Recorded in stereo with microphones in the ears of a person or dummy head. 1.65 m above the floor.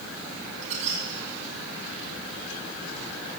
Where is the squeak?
35° right (ahead or behind), 1.4 m.